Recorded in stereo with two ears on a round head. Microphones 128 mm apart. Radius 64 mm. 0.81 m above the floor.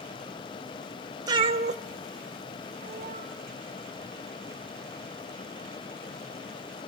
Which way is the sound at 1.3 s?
30° right (ahead or behind).